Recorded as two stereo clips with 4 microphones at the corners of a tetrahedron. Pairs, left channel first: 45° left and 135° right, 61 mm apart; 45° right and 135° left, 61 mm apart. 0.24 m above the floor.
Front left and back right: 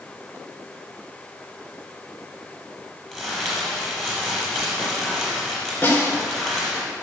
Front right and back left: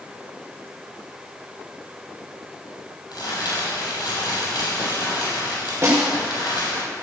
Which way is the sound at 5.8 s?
100° left.